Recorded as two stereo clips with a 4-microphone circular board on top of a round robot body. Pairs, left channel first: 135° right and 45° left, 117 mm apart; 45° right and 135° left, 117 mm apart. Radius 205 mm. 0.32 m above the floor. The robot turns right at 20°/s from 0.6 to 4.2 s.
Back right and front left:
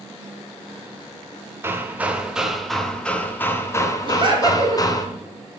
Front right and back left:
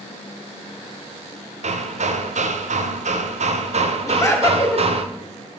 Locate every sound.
1.6 s hammering: 115° left, 0.7 m; by 5.1 s 165° left, 0.7 m
4.1 s laughter: 10° left, 2.0 m